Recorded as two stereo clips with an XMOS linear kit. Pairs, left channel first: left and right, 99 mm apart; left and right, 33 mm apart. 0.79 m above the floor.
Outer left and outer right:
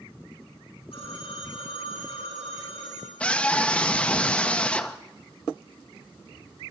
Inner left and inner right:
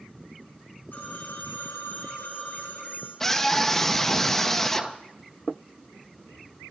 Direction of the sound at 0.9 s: 80° left.